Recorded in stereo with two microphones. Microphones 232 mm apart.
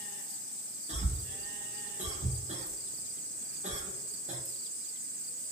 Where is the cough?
30° right (ahead or behind), 0.7 m.